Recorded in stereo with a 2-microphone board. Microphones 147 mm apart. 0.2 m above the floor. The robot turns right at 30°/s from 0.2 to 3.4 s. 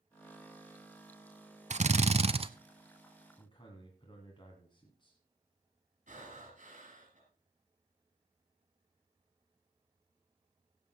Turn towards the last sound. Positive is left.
turn(degrees=-55)  # may be behind; listen again after turning